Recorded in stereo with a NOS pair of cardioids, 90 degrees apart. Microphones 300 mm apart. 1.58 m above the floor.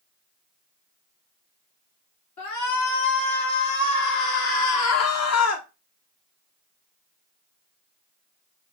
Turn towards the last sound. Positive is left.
turn(degrees=60)